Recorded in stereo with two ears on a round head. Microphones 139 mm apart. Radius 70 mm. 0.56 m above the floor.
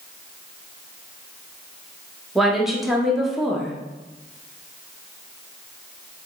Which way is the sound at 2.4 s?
Centre (ahead or behind).